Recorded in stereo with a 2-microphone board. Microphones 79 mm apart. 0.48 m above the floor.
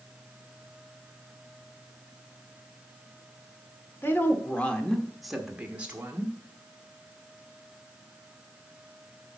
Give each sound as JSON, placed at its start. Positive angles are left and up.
{"t": 4.0, "sound": "a woman speaking", "side_deg": 30, "distance_m": 1.3}